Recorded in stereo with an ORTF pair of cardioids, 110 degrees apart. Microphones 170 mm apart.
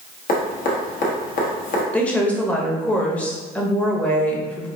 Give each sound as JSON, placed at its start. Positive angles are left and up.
{"t": 0.3, "sound": "dripping", "azimuth_deg": 55, "distance_m": 1.2}
{"t": 1.9, "sound": "a woman speaking", "azimuth_deg": 10, "distance_m": 0.9}